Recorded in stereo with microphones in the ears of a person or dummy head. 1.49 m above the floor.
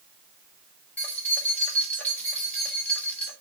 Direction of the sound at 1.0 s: 10° left (ahead or behind).